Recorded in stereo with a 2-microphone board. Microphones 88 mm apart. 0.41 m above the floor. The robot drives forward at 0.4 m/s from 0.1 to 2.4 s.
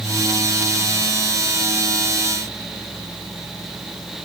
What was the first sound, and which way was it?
Only background noise.